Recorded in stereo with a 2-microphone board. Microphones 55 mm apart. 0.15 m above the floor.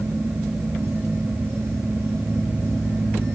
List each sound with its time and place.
Only background noise.